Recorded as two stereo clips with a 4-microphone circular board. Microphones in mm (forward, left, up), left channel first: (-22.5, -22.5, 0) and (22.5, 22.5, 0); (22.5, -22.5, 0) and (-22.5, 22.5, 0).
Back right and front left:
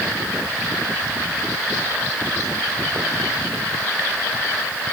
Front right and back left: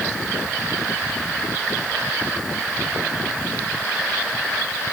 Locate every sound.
Only background noise.